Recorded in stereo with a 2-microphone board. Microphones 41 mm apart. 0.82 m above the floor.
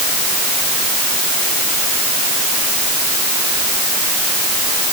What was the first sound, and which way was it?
Only background noise.